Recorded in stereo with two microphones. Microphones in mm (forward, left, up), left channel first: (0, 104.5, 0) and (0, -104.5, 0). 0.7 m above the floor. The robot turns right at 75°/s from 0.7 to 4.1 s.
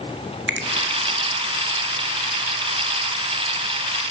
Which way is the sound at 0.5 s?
60° right (ahead or behind).